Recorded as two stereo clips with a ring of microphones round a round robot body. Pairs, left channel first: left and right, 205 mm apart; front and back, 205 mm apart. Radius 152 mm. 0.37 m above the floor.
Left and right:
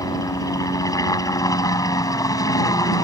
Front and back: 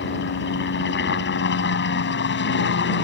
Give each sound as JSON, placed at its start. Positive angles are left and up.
{"t": 0.0, "sound": "a helicopter", "azimuth_deg": 20}